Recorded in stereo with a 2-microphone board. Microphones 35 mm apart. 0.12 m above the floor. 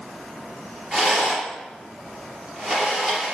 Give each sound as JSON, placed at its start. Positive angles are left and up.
{"t": 0.9, "sound": "a rattle", "side_deg": -20, "distance_m": 3.0}